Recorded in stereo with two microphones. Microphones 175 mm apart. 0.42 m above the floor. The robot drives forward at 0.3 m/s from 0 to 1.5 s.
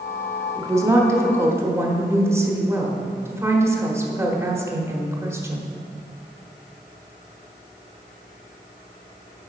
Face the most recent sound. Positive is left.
turn(degrees=-15)  # may be behind; listen again after turning